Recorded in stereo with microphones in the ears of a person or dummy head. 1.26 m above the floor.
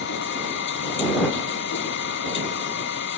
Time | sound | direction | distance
0.0 | a machine running | 70° left (ahead or behind) | ?